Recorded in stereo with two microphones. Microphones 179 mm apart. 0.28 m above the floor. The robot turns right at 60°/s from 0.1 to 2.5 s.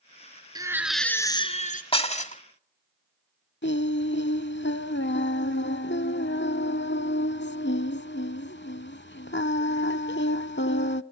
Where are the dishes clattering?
30° left (ahead or behind), 1.0 m; by 2.4 s 45° left (ahead or behind), 1.0 m.